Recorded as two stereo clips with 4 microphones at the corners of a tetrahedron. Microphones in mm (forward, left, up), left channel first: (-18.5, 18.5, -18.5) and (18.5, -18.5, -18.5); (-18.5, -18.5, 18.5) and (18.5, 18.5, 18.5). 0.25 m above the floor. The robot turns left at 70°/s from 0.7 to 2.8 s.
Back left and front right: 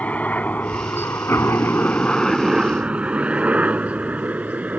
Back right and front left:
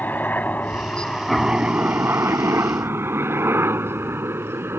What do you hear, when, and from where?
0.0 s a helicopter: 175° right; by 4.8 s 10° left